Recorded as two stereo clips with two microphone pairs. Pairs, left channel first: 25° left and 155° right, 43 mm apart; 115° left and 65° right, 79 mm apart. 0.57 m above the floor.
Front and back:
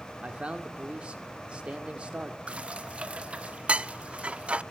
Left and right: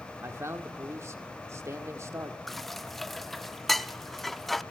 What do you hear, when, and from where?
0.2 s a man speaking: 105° right, 1.7 m
2.5 s dishes clattering: 165° right, 0.5 m